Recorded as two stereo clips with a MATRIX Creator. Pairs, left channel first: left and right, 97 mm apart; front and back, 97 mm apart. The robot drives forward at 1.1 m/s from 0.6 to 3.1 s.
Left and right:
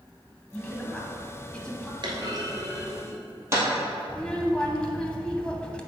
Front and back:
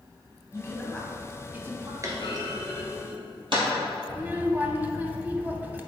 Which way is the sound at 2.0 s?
125° right.